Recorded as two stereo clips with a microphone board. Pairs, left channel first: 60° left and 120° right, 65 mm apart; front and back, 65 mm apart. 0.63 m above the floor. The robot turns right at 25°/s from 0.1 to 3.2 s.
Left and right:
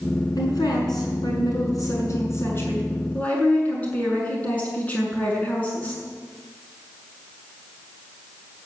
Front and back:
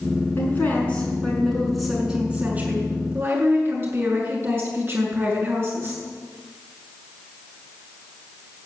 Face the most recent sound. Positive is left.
turn(degrees=130)